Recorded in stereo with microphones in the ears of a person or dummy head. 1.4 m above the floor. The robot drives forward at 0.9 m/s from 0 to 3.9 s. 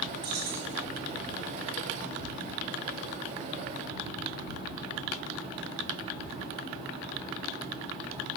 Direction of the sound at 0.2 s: 25° right (ahead or behind).